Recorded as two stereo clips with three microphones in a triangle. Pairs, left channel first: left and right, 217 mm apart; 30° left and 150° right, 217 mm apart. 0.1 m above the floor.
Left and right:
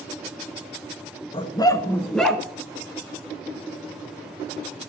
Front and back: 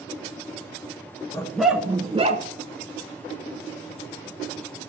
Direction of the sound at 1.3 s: 80° left.